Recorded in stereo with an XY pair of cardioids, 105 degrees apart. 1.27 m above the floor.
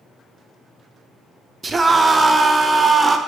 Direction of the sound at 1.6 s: 30° right.